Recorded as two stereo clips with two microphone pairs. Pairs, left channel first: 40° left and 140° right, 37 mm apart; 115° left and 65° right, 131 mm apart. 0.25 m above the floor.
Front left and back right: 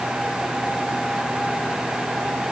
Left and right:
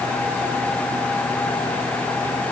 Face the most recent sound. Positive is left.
No sound to turn to.